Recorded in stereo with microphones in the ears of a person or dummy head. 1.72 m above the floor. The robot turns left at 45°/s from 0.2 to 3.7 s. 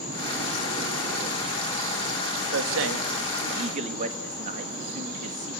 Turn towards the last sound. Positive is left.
turn(degrees=-45)  # may be behind; listen again after turning